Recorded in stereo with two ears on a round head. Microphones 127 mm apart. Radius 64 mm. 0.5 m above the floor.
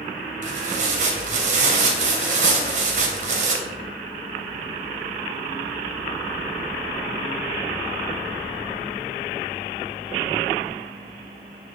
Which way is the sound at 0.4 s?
55° right (ahead or behind).